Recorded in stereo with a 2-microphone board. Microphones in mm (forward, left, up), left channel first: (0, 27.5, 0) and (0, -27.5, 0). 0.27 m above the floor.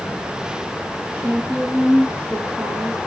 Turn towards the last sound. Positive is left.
turn(degrees=-45)  # may be behind; listen again after turning